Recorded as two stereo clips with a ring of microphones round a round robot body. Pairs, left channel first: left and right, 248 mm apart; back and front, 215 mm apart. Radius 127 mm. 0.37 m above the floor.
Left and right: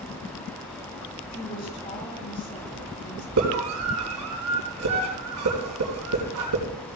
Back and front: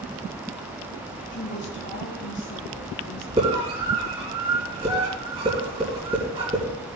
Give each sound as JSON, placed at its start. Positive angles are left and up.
{"t": 1.3, "sound": "a woman speaking", "azimuth_deg": 145, "distance_m": 3.5}
{"t": 3.4, "sound": "a scream", "azimuth_deg": -70, "distance_m": 3.5}